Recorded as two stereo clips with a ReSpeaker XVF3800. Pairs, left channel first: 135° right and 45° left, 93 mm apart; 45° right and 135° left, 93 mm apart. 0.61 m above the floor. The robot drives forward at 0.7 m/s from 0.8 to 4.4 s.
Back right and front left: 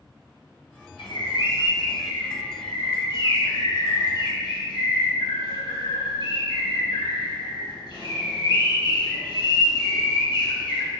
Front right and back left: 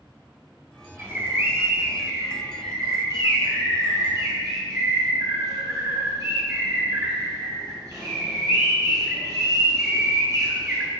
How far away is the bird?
About 1.7 m.